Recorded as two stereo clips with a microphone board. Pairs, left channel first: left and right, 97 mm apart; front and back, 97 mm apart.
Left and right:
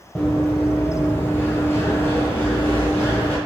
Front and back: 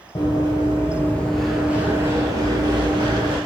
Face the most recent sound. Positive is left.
turn(degrees=160)